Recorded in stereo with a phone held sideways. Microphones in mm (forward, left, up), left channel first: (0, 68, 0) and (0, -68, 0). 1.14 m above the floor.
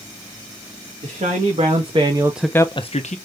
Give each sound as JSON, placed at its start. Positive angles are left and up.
{"t": 1.0, "sound": "a man speaking", "side_deg": -60, "distance_m": 1.5}